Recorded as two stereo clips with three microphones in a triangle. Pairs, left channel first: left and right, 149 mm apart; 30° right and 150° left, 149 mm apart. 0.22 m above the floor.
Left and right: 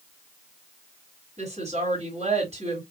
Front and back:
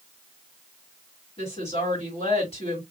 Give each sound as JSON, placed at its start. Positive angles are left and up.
{"t": 1.4, "sound": "a woman speaking", "azimuth_deg": -70, "distance_m": 2.0}